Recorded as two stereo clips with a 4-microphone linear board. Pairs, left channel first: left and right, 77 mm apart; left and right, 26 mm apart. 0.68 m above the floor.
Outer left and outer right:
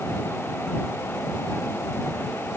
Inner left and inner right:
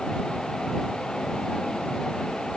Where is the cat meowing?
No cat meowing in this recording.